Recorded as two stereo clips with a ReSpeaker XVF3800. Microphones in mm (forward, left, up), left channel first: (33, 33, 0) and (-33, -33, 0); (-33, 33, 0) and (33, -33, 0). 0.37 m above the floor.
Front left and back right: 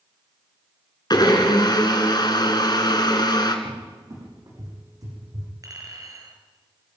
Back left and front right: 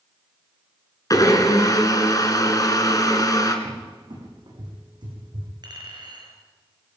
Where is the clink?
85° right, 4.5 m.